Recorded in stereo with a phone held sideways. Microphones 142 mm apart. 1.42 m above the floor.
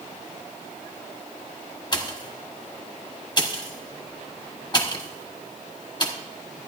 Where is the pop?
30° left (ahead or behind), 1.1 m.